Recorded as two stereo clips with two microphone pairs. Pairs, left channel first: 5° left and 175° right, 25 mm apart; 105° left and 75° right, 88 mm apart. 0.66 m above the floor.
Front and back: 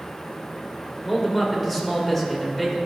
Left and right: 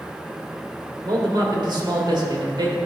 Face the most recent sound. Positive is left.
turn(degrees=-80)